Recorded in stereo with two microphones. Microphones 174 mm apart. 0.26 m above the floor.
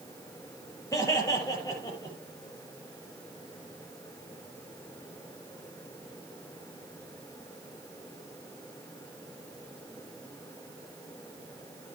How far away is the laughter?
About 6 m.